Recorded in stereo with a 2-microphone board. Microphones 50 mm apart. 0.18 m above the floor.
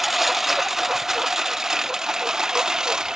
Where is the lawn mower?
5° right (ahead or behind); by 3.2 s 15° right (ahead or behind).